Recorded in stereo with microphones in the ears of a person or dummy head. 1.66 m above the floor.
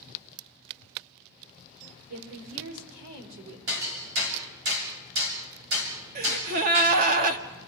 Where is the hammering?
80° right, 6.5 m.